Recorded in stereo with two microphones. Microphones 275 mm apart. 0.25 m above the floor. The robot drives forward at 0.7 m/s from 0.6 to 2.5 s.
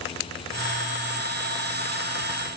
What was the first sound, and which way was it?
Only background noise.